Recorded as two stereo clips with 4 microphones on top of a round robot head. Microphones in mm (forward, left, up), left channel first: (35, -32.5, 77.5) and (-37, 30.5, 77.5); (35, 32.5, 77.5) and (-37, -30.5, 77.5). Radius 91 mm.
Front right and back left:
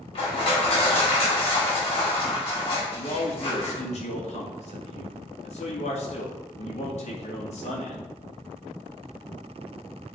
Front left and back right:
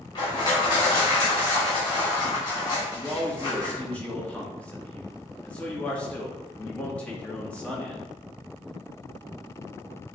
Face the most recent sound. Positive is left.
turn(degrees=-35)